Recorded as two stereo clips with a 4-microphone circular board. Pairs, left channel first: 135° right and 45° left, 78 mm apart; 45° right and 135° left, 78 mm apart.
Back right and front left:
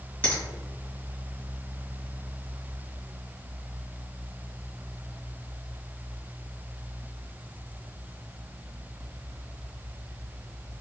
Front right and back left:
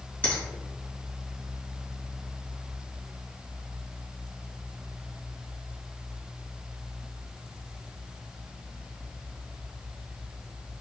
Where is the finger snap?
85° right, 1.4 m.